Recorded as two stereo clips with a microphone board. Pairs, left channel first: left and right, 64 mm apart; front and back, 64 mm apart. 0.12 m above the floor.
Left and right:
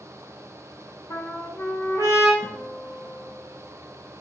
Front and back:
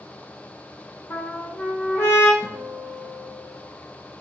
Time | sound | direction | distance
1.1 | a trumpet | 45° left | 1.5 m
2.4 | a guitar | 170° left | 1.9 m